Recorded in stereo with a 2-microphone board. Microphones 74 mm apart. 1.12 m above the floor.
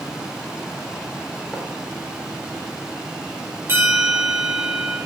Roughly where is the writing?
Centre.